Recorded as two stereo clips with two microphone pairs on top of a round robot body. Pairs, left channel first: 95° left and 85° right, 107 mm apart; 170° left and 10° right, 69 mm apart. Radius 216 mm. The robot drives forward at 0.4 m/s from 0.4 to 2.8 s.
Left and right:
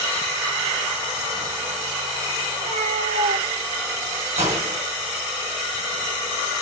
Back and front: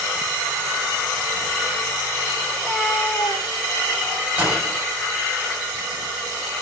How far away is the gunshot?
About 3.5 m.